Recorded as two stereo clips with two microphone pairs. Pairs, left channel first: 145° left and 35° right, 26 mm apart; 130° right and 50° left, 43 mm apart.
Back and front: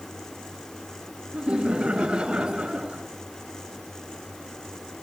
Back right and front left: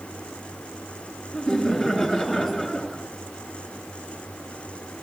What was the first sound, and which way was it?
Laughter, 75° right.